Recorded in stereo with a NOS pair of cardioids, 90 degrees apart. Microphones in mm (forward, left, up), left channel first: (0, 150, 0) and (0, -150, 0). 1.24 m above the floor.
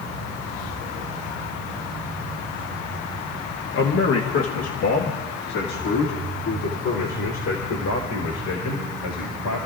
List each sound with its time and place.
3.7 s a man speaking: 40° left, 1.1 m; by 9.7 s 75° left, 5 m